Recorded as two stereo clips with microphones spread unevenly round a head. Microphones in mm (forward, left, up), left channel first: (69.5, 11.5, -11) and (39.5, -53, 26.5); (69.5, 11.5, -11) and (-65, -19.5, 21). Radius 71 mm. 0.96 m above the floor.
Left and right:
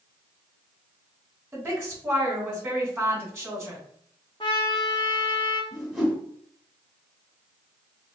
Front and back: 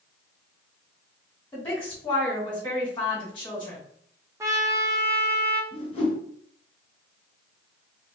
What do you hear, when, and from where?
1.5 s a woman speaking: 45° right, 2.5 m
4.4 s a trumpet: 135° left, 0.5 m
5.7 s a whoosh: 40° right, 2 m